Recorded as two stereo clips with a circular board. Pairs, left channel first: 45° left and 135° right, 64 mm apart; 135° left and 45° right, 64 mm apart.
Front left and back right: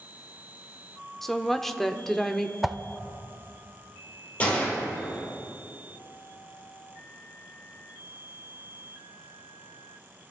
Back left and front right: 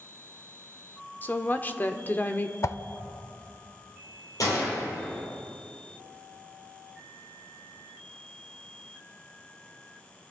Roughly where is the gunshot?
Left.